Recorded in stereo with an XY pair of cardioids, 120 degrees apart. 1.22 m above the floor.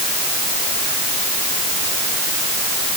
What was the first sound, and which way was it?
Only background noise.